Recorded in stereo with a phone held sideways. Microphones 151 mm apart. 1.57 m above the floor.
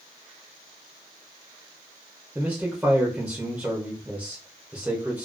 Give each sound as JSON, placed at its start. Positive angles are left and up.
{"t": 2.4, "sound": "a man speaking", "side_deg": -10, "distance_m": 0.6}